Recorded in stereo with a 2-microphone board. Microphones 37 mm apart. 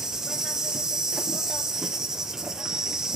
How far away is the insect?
About 0.9 m.